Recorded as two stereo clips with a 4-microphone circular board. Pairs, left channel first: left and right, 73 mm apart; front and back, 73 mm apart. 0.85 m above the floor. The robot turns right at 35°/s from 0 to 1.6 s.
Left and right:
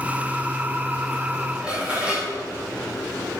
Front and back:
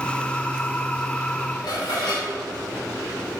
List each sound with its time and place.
1.6 s dishes clattering: 15° right, 3 m